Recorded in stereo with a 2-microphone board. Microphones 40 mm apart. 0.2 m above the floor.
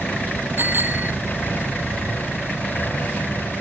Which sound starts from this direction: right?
A bicycle bell, at 0.6 s.